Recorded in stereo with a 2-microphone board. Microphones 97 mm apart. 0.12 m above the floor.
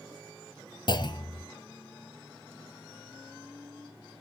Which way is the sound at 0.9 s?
50° left (ahead or behind).